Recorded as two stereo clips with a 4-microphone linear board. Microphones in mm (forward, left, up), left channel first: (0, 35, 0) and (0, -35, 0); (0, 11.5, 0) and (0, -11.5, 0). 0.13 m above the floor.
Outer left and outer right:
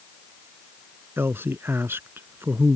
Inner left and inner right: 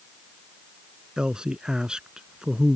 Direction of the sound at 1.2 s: 35° right (ahead or behind).